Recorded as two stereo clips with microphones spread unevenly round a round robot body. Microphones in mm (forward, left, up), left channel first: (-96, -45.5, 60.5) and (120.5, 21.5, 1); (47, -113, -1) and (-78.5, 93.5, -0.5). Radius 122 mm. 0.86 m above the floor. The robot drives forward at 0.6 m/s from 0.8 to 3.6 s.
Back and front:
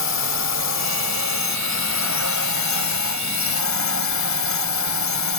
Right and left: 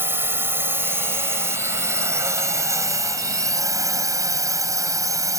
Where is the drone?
160° right; by 5.4 s 165° right.